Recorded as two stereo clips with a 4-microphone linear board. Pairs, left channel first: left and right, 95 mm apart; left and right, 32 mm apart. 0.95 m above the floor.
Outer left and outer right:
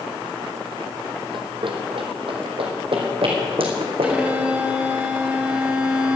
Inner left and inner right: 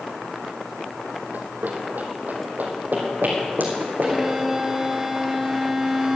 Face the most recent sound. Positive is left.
turn(degrees=-15)  # may be behind; listen again after turning